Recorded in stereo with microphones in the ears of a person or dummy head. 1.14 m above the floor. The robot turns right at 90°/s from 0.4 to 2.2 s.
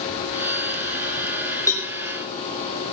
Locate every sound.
1.7 s a cowbell: 15° left (ahead or behind), 1.6 m; by 1.9 s 5° right (ahead or behind), 1.6 m